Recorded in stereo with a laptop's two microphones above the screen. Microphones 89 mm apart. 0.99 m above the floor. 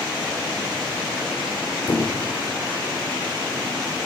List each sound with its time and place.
1.9 s a squeak: 50° left (ahead or behind), 2.5 m